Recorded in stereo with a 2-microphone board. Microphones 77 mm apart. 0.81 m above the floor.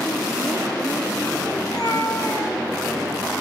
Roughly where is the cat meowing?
Left.